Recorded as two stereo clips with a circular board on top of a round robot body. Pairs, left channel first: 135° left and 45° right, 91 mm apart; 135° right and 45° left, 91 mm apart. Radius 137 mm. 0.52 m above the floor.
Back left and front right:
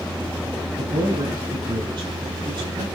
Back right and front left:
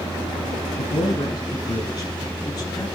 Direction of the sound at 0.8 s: 90° right.